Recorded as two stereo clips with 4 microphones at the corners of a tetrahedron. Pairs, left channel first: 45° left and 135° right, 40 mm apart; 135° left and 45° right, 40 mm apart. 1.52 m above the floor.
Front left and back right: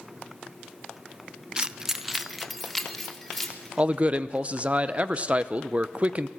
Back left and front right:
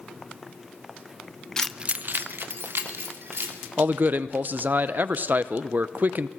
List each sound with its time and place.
1.6 s keys jangling: 175° right, 0.6 m; by 3.7 s 40° right, 3 m
3.8 s a man speaking: 80° right, 0.8 m